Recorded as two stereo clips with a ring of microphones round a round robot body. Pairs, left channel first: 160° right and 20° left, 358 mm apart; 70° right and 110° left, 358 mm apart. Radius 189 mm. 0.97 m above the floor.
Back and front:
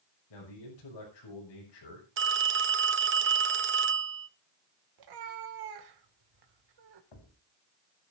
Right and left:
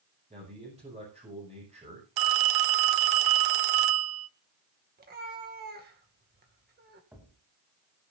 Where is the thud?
160° right, 3.5 m.